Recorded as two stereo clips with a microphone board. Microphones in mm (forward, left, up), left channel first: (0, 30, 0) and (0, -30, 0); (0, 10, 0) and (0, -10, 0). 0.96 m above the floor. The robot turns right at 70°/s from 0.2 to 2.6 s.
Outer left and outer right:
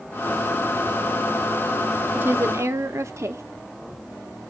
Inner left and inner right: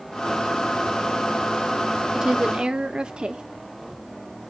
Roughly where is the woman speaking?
Behind right.